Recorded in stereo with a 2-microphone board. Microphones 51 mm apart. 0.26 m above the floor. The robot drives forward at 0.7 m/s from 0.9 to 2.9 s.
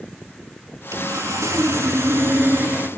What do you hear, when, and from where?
0.9 s sawing: 70° right (ahead or behind), 1.1 m; by 2.9 s 40° right (ahead or behind), 1.6 m